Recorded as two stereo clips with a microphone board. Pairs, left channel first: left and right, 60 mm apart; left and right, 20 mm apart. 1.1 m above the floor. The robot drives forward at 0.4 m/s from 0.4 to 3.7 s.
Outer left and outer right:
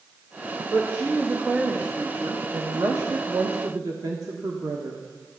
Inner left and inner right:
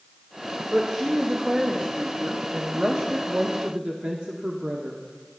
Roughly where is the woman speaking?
Right.